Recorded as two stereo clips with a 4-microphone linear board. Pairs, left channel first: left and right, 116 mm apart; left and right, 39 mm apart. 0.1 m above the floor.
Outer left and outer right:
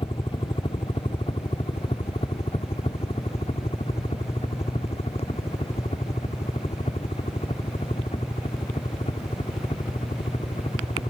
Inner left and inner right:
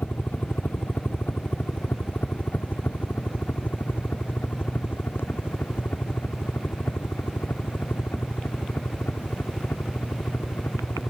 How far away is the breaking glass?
No breaking glass in this recording.